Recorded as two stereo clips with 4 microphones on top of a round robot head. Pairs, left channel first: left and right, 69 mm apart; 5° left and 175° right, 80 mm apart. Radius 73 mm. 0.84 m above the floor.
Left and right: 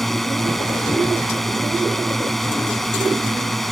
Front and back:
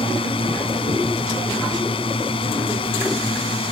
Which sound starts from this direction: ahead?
A drone, at 0.0 s.